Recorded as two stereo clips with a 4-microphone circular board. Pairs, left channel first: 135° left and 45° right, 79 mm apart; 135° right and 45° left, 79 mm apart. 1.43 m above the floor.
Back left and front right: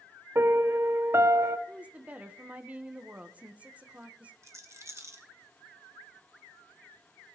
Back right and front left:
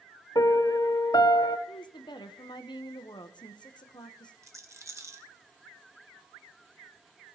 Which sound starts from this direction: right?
A piano, at 0.3 s.